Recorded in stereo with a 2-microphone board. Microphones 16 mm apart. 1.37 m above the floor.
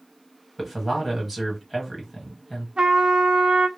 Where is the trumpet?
55° right (ahead or behind), 0.6 m.